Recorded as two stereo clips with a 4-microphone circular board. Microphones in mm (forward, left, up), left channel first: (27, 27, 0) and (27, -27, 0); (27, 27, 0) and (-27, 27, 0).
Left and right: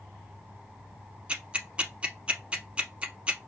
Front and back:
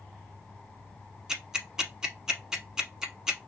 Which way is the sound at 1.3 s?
115° right.